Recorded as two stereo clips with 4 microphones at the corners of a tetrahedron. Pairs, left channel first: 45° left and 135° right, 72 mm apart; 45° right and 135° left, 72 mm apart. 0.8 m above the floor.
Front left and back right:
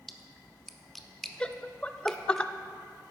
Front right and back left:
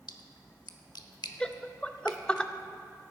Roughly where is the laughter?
Ahead.